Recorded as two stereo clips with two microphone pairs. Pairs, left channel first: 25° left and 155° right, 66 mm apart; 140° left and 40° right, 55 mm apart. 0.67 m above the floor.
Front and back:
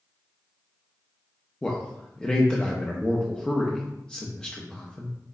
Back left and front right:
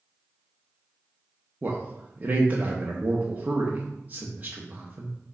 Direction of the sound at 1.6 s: 40° right.